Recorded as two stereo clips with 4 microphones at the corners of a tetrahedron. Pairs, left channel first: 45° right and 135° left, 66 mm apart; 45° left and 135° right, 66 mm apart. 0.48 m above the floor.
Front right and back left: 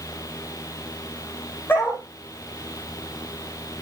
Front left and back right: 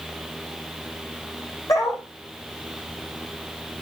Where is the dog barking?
15° left, 8 m.